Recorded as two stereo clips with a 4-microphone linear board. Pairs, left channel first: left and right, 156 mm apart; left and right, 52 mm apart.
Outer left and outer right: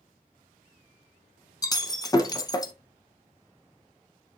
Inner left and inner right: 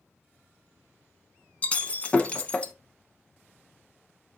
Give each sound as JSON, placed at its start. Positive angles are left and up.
{"t": 1.6, "sound": "breaking glass", "side_deg": 25, "distance_m": 0.7}